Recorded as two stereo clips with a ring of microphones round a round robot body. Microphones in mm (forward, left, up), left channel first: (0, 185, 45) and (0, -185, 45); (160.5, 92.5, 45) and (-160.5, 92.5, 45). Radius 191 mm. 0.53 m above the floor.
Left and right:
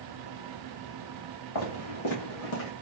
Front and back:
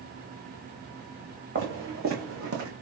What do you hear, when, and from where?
1.6 s footsteps: 130° left, 2.5 m; by 2.7 s 135° left, 1.5 m